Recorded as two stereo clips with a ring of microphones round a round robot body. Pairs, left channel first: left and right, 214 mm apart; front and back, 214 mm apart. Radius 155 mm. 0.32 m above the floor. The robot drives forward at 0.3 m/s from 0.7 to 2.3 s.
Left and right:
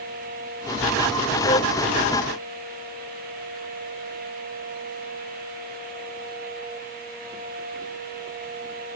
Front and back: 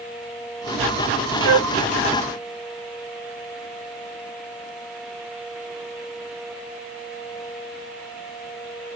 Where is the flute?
160° left.